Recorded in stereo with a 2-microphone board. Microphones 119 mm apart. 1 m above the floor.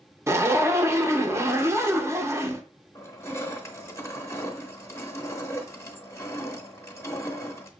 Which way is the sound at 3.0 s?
25° left (ahead or behind).